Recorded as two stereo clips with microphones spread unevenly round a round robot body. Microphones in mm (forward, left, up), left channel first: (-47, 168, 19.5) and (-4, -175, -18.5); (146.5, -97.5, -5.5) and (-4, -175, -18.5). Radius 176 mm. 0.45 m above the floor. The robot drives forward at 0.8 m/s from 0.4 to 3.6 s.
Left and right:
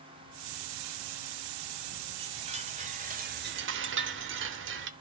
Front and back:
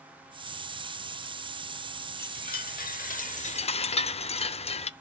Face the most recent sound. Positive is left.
turn(degrees=-35)